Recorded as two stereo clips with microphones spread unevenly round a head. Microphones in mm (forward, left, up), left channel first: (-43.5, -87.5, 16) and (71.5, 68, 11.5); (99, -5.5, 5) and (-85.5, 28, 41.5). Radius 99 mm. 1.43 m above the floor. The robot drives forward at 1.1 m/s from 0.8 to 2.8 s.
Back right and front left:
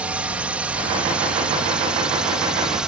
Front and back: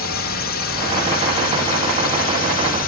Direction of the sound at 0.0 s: 30° right.